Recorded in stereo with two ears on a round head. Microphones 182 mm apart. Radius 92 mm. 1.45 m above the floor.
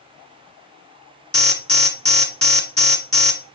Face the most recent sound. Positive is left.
turn(degrees=5)  # may be behind; listen again after turning